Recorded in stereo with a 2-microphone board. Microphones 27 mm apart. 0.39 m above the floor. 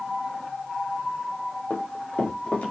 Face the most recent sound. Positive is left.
turn(degrees=75)  # may be behind; listen again after turning